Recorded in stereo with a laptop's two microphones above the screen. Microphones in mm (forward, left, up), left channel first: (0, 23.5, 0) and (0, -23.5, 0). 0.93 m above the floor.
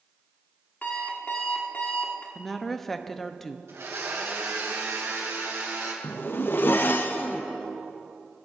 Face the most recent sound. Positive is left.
turn(degrees=50)  # may be behind; listen again after turning